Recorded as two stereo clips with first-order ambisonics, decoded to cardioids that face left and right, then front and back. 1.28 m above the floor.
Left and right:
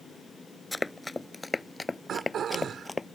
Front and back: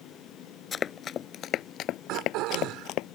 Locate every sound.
0.7 s running footsteps: 20° left; by 3.1 s 15° left
2.1 s throat clearing: 150° right